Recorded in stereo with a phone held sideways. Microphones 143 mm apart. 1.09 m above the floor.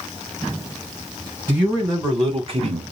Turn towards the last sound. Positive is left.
turn(degrees=-50)  # may be behind; listen again after turning